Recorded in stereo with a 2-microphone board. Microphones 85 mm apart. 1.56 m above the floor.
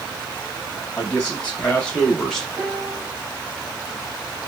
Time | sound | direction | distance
1.0 | a man speaking | 20° left (ahead or behind) | 2.5 m
2.6 | a piano | centre (ahead or behind) | 1.9 m